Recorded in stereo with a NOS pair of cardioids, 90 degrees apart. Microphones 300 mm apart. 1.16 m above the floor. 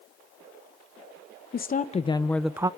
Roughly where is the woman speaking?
Ahead left.